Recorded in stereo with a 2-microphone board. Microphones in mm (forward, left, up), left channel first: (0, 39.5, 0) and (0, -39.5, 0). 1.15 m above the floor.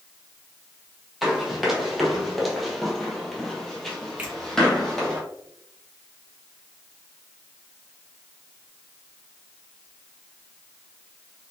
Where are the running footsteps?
Centre (ahead or behind), 1.5 m; by 5.2 s 5° left (ahead or behind), 1.8 m.